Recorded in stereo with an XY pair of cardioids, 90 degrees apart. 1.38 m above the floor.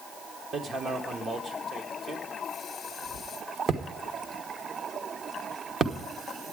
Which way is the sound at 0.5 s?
60° right.